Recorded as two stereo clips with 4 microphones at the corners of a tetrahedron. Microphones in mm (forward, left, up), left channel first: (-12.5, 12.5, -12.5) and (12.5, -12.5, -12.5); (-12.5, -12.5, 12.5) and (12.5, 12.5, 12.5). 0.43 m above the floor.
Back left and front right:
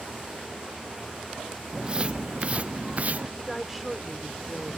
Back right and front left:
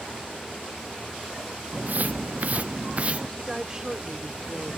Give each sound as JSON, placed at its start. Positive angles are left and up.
{"t": 1.7, "sound": "footsteps", "azimuth_deg": 15}
{"t": 3.4, "sound": "a woman speaking", "azimuth_deg": 35}